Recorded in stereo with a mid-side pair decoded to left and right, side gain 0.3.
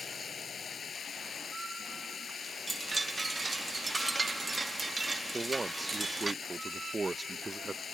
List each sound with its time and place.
0.0 s running water: 65° left
2.7 s a chime: 35° right
5.3 s a man speaking: 35° right